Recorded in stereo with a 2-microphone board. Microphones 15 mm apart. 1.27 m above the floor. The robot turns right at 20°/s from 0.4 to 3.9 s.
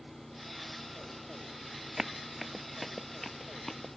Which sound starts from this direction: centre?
Running footsteps, at 2.0 s.